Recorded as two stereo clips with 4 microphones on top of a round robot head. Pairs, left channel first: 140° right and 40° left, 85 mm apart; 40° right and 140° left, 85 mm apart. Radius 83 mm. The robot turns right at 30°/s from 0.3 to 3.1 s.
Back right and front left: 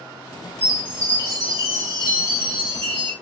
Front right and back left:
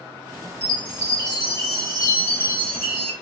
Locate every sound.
0.6 s a chime: 30° right, 1.9 m; by 3.1 s 45° left, 1.9 m